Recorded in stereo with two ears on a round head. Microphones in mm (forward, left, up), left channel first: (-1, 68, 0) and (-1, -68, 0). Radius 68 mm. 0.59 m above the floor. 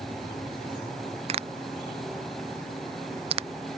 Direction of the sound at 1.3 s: 40° right (ahead or behind).